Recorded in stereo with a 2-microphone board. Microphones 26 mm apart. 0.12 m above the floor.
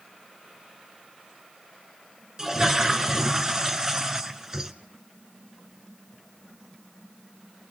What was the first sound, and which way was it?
A toilet flushing, 20° right (ahead or behind).